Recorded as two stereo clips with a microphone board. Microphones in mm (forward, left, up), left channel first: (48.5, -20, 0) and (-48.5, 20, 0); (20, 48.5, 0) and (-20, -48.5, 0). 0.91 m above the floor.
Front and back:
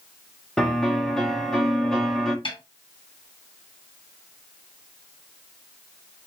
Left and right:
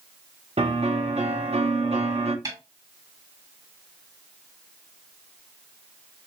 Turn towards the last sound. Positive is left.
turn(degrees=-60)